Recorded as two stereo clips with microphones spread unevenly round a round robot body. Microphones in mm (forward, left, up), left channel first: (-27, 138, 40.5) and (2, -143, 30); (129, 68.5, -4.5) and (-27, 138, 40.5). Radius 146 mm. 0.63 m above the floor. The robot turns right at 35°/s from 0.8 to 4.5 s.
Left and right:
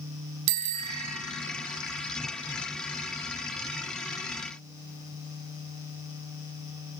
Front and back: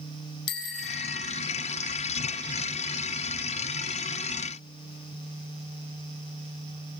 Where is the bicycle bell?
55° right, 4 m; by 1.2 s 40° right, 4 m.